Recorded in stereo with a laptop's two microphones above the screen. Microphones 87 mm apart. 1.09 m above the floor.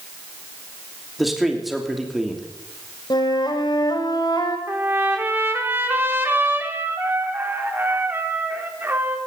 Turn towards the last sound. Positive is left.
turn(degrees=-25)  # may be behind; listen again after turning